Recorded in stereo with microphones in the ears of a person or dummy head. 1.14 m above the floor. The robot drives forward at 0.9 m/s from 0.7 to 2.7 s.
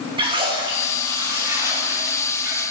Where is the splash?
25° right (ahead or behind), 1.9 m; by 2.6 s 15° right (ahead or behind), 3.5 m.